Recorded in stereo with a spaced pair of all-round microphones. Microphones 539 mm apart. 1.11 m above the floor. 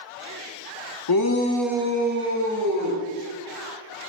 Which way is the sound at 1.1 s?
45° left (ahead or behind).